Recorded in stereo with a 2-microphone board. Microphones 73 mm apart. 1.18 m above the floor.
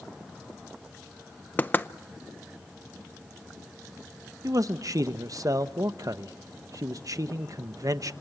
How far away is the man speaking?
About 0.9 m.